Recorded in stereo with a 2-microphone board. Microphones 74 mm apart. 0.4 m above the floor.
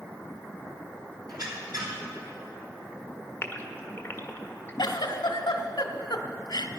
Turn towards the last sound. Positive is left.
turn(degrees=85)